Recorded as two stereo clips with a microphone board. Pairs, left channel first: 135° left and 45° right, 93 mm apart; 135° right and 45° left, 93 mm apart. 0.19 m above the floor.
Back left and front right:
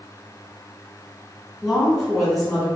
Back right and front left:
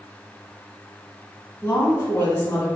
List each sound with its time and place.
1.6 s a woman speaking: 140° right, 1.0 m